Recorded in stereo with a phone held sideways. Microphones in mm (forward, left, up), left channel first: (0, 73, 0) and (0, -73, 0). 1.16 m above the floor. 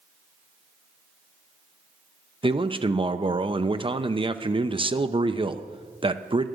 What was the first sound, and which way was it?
A man speaking, 35° right (ahead or behind).